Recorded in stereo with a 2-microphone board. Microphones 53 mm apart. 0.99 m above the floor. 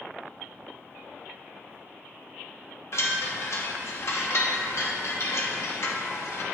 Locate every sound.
2.9 s a chime: 60° left (ahead or behind), 0.9 m